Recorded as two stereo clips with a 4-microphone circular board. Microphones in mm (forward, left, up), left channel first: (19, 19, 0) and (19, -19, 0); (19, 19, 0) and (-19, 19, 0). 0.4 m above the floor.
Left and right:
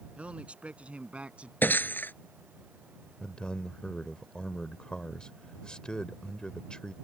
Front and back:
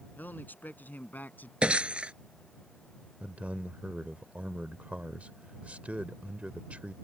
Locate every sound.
0.2 s a man speaking: 35° right
1.6 s breaking glass: 120° left
3.2 s a man speaking: 145° left